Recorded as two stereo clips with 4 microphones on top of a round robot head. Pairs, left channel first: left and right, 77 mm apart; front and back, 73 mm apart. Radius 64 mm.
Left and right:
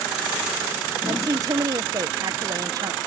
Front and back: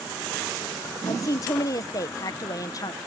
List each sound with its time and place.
1.1 s a woman speaking: 45° right